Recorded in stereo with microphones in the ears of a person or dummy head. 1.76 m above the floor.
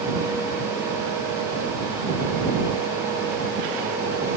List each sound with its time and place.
Only background noise.